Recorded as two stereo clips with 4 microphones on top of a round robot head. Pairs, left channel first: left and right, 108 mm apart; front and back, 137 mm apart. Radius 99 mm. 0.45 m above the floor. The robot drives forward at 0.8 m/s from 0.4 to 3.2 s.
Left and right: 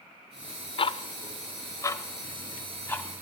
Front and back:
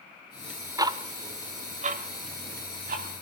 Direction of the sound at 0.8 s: 115° left.